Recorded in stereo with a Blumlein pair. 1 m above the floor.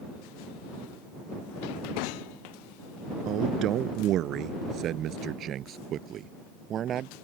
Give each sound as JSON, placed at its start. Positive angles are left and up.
{"t": 3.2, "sound": "a man speaking", "azimuth_deg": -35}